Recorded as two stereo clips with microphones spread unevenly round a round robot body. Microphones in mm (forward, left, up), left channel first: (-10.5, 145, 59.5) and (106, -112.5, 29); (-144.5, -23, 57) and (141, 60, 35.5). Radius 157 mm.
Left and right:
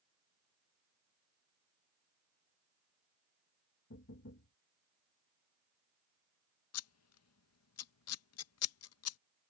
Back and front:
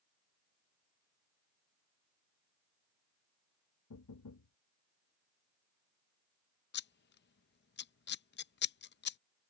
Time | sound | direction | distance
3.9 | knocking | 165° left | ?
6.7 | scissors | 145° left | ?